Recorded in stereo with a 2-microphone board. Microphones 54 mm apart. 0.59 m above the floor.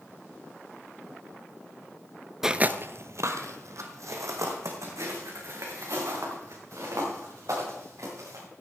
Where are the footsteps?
10° right (ahead or behind), 0.5 m; by 8.4 s 70° right (ahead or behind), 7.5 m.